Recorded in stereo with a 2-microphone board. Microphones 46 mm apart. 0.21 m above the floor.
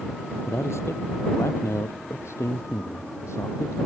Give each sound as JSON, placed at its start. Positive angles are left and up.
{"t": 0.5, "sound": "a man speaking", "side_deg": 75}